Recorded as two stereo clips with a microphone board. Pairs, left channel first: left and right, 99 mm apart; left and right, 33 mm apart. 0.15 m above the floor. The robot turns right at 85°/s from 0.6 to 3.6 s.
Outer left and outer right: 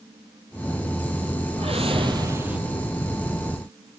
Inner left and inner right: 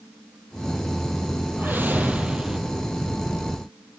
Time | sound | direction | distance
1.6 | a whoosh | 95° right | 2.5 m